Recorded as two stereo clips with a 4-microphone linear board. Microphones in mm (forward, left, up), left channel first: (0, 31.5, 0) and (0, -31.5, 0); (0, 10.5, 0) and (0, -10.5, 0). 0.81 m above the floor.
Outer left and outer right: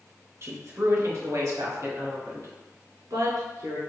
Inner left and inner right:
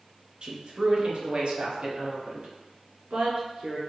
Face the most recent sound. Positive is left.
turn(degrees=-75)  # may be behind; listen again after turning